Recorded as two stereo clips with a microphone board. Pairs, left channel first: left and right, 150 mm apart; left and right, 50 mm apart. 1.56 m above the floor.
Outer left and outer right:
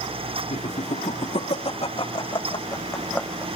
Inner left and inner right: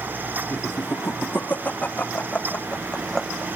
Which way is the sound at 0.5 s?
50° left (ahead or behind).